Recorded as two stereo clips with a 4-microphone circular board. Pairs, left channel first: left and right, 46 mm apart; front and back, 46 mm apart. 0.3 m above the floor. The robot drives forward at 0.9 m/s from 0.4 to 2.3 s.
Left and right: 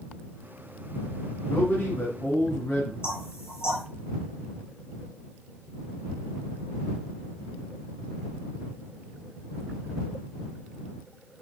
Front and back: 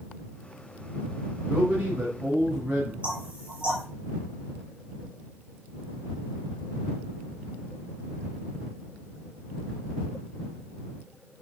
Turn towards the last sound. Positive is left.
turn(degrees=120)